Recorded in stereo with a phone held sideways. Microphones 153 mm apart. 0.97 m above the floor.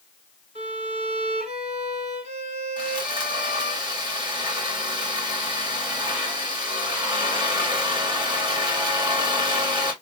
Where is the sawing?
30° right (ahead or behind), 1.8 m.